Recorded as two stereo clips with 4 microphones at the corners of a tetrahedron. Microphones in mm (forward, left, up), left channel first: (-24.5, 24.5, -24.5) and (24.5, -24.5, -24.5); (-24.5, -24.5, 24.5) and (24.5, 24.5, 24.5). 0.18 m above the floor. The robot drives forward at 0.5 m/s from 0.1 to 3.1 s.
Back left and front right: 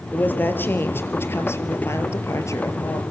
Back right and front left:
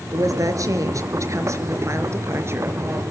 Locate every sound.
0.1 s a woman speaking: 75° left, 3.5 m; by 3.0 s 100° left, 3.5 m